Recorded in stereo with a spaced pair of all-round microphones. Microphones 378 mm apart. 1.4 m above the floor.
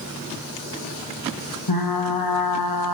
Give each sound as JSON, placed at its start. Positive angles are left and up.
{"t": 1.7, "sound": "frying", "side_deg": 70, "distance_m": 1.0}